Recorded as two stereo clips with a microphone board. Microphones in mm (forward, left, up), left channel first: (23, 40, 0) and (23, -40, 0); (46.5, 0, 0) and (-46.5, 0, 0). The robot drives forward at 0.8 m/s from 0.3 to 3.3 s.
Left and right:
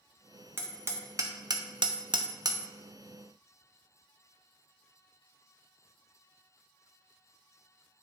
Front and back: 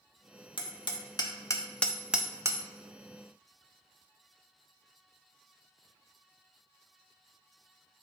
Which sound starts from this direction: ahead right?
Hammering, at 0.6 s.